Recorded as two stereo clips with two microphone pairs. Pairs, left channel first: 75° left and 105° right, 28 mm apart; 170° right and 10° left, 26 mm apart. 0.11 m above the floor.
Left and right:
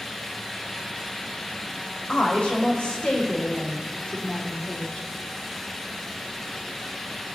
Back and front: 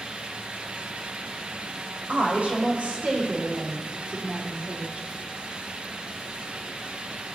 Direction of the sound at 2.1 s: 40° left.